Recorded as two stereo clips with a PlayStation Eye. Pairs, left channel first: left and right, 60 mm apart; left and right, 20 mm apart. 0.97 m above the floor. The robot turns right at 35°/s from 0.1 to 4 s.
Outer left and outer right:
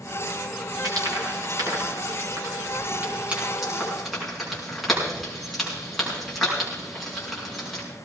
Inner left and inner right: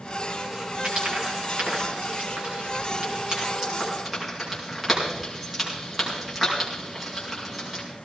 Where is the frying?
70° right (ahead or behind), 5.5 m; by 7.8 s centre (ahead or behind), 5.5 m.